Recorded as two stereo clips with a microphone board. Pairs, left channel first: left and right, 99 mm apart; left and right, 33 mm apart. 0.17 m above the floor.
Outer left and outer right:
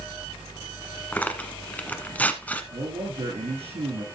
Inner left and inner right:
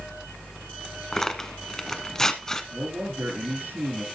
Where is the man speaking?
80° right, 8 m.